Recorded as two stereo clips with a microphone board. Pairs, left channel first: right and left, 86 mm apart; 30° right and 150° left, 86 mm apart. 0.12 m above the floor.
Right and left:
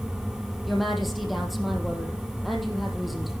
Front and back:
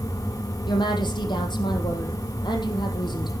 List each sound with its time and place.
0.7 s a woman speaking: straight ahead, 4 m